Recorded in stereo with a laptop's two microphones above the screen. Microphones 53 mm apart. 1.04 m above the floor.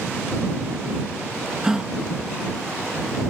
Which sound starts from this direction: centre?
A gasp, at 1.6 s.